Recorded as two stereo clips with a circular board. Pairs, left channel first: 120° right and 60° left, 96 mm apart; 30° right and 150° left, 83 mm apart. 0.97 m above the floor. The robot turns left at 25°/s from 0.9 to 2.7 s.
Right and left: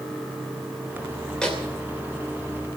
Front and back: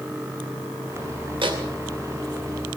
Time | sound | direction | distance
1.4 | a microwave | 160° left | 2.5 m